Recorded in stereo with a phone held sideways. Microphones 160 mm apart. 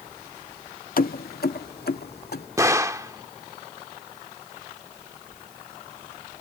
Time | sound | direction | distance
1.0 | keys jangling | 65° left (ahead or behind) | ?
2.6 | a gunshot | 20° right (ahead or behind) | ?